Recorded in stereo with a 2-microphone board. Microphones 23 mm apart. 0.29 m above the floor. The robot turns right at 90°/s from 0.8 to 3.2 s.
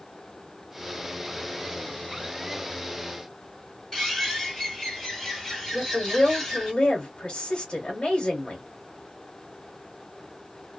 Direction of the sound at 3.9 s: 10° left (ahead or behind).